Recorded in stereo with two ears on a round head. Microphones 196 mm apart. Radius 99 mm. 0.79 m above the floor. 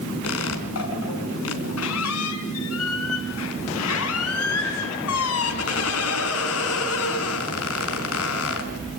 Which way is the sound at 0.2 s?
75° left (ahead or behind).